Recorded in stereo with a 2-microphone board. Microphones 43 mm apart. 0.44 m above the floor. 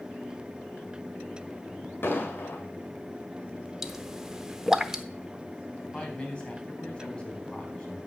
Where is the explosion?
55° left (ahead or behind), 1.9 m.